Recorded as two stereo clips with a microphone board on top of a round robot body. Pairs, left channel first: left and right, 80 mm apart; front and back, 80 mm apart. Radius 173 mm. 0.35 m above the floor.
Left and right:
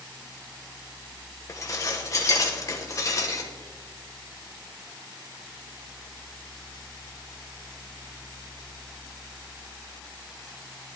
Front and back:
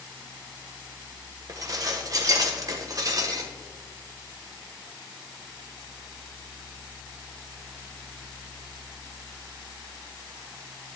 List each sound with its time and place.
1.5 s dishes clattering: 135° left, 1.3 m